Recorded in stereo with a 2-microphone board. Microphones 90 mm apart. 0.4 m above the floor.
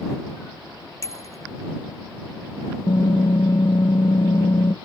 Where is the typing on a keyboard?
65° left (ahead or behind).